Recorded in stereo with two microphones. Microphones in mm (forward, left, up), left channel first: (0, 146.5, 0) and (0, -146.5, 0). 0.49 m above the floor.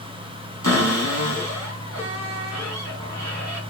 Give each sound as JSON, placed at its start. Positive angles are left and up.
{"t": 0.6, "sound": "a cupboard door", "side_deg": -65, "distance_m": 4.0}